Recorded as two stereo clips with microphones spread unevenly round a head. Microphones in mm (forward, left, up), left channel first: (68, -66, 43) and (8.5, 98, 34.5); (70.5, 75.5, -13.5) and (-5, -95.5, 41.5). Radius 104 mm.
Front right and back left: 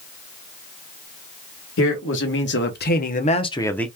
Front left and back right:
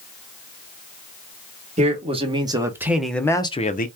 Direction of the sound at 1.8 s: 60° right.